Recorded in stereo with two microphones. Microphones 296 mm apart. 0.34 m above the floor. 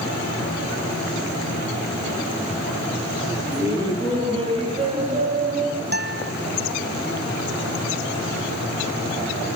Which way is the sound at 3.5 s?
10° right (ahead or behind).